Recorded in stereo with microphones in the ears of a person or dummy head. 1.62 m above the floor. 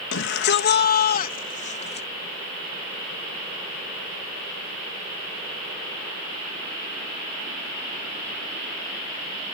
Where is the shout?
70° left (ahead or behind); by 2.1 s 35° left (ahead or behind).